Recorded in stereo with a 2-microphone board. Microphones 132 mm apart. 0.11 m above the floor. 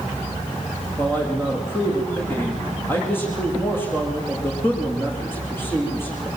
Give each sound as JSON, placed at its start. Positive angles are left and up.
{"t": 1.0, "sound": "a man speaking", "side_deg": 15, "distance_m": 8.5}